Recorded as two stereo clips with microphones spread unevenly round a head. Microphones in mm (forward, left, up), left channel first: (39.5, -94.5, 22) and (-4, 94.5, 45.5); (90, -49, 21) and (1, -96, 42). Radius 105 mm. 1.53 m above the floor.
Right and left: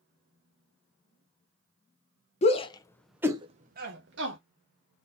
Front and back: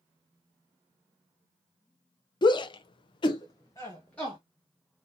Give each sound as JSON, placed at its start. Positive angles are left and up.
{"t": 2.4, "sound": "a shout", "azimuth_deg": -20, "distance_m": 0.7}